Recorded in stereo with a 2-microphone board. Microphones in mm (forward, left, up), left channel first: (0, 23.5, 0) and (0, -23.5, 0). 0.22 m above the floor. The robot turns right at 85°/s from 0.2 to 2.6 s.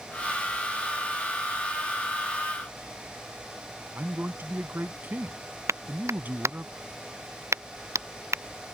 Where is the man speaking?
45° right (ahead or behind).